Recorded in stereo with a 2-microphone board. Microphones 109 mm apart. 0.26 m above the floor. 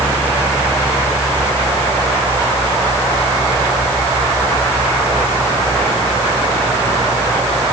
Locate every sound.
Only background noise.